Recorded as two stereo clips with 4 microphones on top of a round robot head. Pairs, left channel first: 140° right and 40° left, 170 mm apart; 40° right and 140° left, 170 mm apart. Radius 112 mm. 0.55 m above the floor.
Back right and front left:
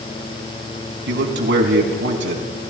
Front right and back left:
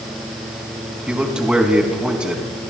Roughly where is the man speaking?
Ahead left.